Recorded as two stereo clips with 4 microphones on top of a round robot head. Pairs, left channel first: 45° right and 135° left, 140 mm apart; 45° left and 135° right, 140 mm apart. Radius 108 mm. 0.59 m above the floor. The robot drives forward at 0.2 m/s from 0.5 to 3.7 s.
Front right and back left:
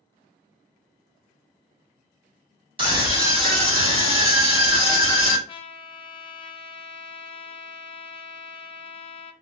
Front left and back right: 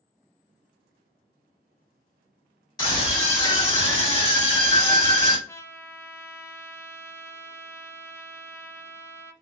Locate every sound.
2.8 s a scream: 100° left, 1.7 m; by 5.4 s 110° left, 1.7 m
5.5 s a trumpet: 20° right, 0.5 m